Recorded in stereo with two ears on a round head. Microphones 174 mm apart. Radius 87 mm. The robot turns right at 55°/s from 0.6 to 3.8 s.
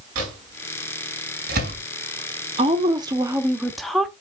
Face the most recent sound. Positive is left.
turn(degrees=0)